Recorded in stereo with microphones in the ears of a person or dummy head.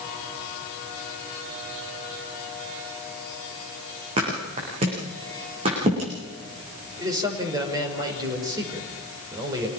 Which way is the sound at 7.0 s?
20° right (ahead or behind).